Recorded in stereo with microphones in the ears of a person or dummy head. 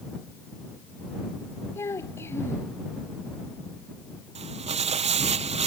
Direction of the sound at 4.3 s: 35° right (ahead or behind).